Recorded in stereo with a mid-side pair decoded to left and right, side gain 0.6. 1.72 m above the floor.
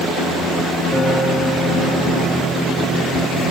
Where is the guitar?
10° left, 7 m.